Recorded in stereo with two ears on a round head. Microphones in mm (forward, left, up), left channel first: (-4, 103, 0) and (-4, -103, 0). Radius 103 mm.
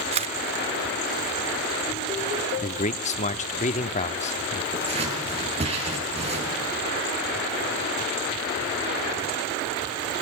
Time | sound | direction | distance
0.1 | a camera shutter | 25° right (ahead or behind) | 0.7 m
2.6 | a man speaking | 30° left (ahead or behind) | 1.0 m
4.7 | scissors | 30° right (ahead or behind) | 9.5 m